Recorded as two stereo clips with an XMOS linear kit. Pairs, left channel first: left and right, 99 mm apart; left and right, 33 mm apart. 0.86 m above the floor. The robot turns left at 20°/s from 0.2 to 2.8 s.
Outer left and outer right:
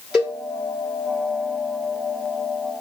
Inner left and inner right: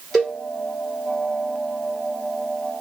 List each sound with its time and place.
0.1 s a cowbell: 5° right (ahead or behind), 2.5 m; by 0.4 s centre (ahead or behind), 2.5 m